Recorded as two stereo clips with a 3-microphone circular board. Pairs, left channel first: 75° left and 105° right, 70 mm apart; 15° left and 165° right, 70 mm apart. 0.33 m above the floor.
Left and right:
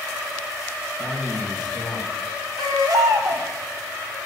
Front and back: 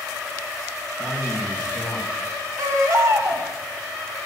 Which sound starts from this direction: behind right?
A baby crying, at 2.6 s.